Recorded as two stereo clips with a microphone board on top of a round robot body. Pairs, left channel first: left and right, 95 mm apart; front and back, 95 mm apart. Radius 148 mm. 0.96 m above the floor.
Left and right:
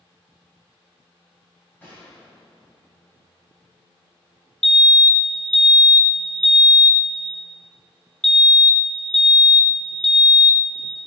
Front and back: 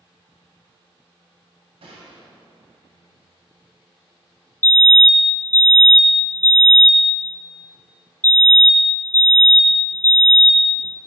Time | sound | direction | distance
1.8 | a gunshot | 165° left | 2 m
4.6 | a fire alarm | 15° left | 1.1 m